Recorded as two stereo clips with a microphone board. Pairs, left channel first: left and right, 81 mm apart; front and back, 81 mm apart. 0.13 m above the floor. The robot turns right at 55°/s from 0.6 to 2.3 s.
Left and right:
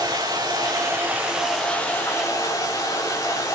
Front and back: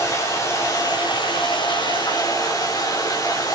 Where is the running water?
50° right, 5 m; by 3.5 s 45° left, 5 m.